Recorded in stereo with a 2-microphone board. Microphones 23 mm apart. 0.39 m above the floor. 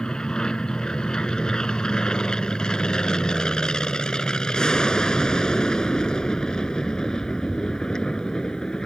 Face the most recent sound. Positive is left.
turn(degrees=35)  # may be behind; listen again after turning